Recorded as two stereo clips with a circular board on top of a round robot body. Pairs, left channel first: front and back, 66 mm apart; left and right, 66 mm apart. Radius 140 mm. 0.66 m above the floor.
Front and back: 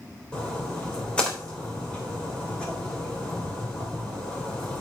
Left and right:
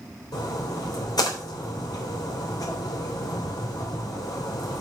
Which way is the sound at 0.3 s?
75° left.